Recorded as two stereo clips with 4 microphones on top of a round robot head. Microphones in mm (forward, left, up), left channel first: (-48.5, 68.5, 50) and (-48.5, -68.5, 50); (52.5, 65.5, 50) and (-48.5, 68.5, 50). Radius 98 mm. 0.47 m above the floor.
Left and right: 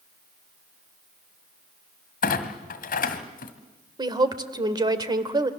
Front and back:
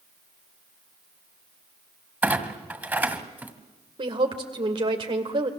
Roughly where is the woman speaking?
Behind right.